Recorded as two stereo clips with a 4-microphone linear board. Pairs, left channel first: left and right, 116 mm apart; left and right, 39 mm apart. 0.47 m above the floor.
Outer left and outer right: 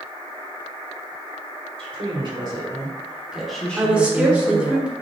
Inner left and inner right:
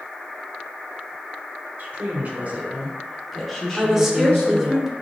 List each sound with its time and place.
1.8 s a woman speaking: 50° right (ahead or behind), 1.6 m; by 4.8 s 45° left (ahead or behind), 1.4 m
3.8 s a woman speaking: 10° right (ahead or behind), 0.9 m